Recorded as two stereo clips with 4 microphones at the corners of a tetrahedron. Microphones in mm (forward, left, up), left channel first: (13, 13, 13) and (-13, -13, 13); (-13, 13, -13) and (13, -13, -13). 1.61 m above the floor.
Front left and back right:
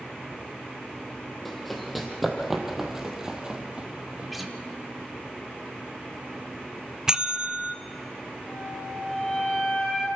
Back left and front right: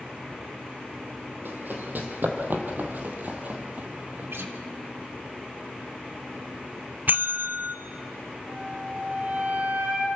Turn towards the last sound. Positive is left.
turn(degrees=-25)